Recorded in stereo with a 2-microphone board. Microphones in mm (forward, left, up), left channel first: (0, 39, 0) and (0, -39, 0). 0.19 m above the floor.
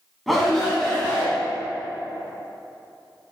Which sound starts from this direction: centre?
A shout, at 0.3 s.